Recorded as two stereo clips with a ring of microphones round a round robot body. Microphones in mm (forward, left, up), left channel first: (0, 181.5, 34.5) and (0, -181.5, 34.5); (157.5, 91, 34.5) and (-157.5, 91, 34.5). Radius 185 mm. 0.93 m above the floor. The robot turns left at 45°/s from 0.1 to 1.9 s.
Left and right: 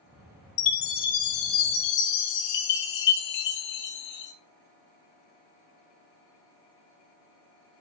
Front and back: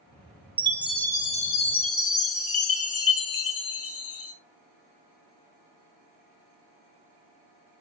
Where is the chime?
105° left, 1.3 m; by 4.3 s 45° left, 1.3 m.